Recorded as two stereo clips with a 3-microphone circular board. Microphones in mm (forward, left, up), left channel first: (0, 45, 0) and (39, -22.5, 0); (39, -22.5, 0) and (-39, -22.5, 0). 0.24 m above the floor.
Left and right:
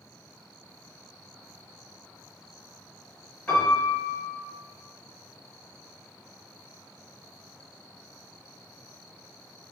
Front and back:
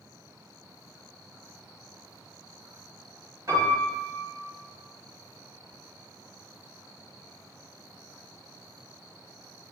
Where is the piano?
175° right, 2.0 m.